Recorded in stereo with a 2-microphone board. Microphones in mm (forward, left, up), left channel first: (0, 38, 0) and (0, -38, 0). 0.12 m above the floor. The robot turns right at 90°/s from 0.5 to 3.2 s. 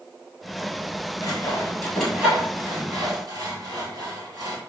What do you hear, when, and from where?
1.2 s sawing: 55° left (ahead or behind), 1.6 m; by 4.6 s 55° right (ahead or behind), 1.6 m